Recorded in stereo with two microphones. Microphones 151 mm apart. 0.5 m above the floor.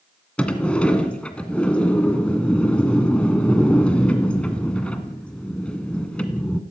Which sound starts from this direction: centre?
A sliding door, at 0.4 s.